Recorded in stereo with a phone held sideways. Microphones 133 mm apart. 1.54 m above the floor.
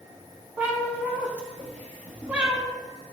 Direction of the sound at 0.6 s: 10° right (ahead or behind).